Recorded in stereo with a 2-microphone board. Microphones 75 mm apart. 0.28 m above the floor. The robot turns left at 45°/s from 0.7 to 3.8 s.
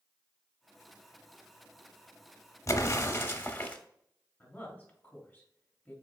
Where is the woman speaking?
20° left (ahead or behind), 1.5 m.